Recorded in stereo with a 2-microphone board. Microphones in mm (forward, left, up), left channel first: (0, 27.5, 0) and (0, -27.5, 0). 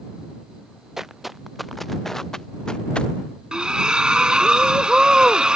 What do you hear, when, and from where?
1.0 s footsteps: 5° right (ahead or behind); by 3.1 s 20° left (ahead or behind)
3.5 s a splash: 15° right (ahead or behind)